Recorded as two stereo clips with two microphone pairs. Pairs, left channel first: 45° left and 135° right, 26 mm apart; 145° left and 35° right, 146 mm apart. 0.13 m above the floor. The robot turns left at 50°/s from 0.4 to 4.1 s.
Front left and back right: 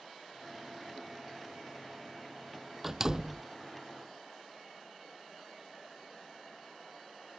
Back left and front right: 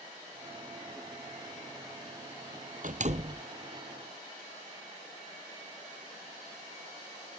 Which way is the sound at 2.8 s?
55° right.